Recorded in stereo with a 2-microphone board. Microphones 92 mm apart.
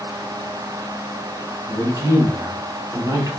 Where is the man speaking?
35° right (ahead or behind), 1.3 m.